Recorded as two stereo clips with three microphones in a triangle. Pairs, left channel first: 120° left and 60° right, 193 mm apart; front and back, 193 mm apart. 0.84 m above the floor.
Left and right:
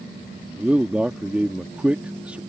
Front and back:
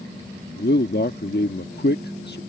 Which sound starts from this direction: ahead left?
A man speaking, at 0.6 s.